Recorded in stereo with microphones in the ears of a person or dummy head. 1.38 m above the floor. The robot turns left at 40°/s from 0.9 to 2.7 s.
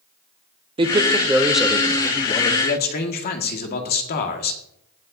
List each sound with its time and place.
0.8 s a man speaking: 150° right, 0.9 m; by 2.5 s 145° left, 0.9 m
2.6 s a man speaking: 50° left (ahead or behind), 1.6 m